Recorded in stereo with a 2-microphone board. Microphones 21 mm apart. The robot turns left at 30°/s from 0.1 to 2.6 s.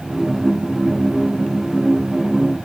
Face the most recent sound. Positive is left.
No sound to turn to.